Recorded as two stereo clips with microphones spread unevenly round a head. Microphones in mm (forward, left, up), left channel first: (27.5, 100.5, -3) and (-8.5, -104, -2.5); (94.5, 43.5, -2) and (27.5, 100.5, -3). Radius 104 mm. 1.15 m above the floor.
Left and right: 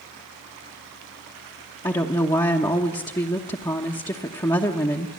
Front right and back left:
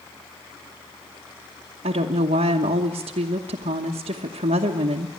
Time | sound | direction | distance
1.8 | a woman speaking | 155° left | 1.0 m